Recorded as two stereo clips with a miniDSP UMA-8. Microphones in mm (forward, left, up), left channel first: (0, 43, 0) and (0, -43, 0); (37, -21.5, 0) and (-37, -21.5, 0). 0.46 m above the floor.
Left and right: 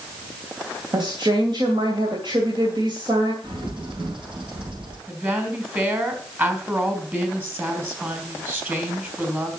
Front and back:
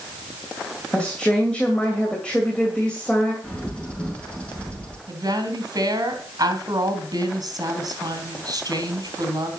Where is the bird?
75° right, 4.5 m.